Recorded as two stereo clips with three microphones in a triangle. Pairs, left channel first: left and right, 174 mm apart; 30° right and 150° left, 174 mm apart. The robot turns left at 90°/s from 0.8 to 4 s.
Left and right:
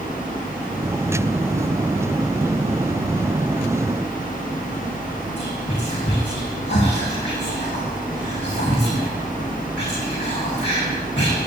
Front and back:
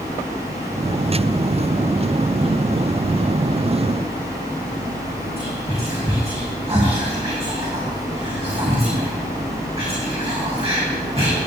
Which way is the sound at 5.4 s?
95° left.